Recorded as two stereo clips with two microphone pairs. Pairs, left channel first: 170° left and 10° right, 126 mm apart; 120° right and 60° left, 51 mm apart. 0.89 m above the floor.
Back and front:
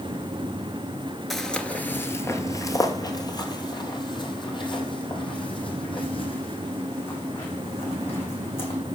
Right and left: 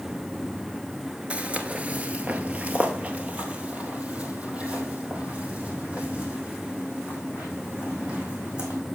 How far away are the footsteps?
About 0.9 m.